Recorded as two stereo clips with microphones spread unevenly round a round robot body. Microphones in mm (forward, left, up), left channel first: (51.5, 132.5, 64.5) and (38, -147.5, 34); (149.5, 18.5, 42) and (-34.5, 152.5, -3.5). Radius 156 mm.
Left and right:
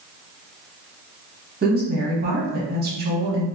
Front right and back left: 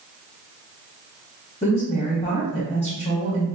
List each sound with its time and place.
1.6 s a woman speaking: 105° right, 1.0 m